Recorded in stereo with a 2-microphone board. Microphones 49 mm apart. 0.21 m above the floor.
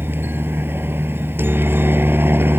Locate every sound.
0.0 s a helicopter: 45° right (ahead or behind)